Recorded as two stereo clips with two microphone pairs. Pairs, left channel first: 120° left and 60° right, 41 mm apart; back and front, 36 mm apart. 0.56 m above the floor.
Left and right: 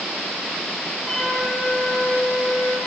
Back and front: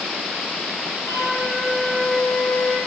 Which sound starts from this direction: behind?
A flute, at 1.1 s.